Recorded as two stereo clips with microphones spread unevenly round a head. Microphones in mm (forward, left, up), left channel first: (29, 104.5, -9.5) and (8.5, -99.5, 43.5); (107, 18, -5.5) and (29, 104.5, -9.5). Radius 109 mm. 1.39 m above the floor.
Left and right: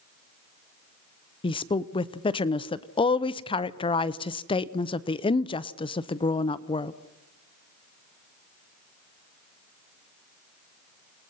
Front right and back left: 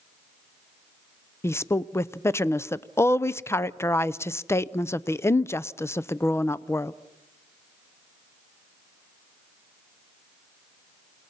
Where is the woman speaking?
20° left, 0.7 m.